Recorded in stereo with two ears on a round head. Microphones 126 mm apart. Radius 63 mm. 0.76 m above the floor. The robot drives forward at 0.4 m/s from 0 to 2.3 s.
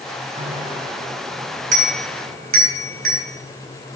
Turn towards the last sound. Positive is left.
turn(degrees=-60)  # may be behind; listen again after turning